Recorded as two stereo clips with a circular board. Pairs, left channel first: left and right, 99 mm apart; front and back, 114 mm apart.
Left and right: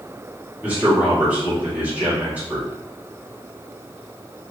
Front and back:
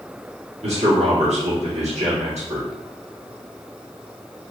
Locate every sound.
0.6 s a man speaking: 160° right, 1.7 m